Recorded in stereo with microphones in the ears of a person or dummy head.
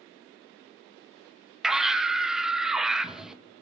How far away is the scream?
About 1.3 m.